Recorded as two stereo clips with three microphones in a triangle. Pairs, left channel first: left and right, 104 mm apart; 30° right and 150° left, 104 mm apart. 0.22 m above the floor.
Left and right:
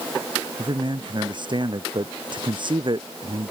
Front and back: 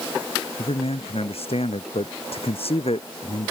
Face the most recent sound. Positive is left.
turn(degrees=-50)